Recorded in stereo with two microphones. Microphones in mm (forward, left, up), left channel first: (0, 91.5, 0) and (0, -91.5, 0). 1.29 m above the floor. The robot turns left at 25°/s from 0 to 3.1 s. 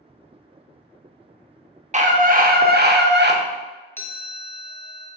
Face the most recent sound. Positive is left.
turn(degrees=10)  # may be behind; listen again after turning